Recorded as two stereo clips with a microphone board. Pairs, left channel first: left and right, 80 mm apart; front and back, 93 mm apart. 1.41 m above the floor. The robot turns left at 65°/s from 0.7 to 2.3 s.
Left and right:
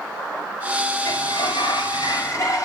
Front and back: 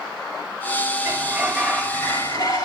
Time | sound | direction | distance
1.1 | a sliding door | 120° left | 5.5 m